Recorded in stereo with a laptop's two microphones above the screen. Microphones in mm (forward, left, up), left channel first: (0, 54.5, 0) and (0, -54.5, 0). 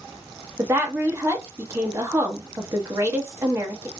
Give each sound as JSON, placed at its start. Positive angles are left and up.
{"t": 0.6, "sound": "a woman speaking", "side_deg": -25, "distance_m": 1.1}